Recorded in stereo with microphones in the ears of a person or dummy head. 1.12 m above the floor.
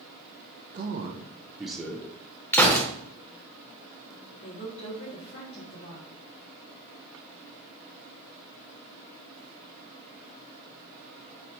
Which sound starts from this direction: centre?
A gunshot, at 2.5 s.